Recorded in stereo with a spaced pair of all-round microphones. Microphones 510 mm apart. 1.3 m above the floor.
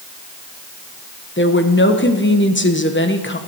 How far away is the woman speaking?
About 1.1 m.